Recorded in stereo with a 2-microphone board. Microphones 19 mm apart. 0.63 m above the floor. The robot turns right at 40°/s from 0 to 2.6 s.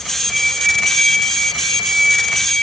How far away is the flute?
About 1.1 m.